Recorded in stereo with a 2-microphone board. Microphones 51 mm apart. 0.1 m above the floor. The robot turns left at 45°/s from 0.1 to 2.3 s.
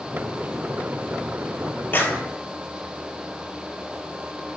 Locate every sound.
1.9 s a clap: 40° left (ahead or behind), 2 m; by 2.2 s 35° left (ahead or behind), 2 m